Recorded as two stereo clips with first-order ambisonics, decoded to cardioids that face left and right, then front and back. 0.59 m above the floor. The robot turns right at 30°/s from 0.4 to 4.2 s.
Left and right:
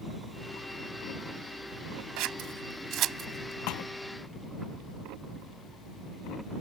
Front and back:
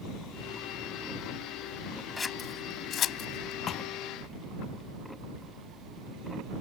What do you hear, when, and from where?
2.2 s scissors: 75° right; by 3.6 s 30° right
3.7 s a thud: 60° left; by 3.9 s 65° left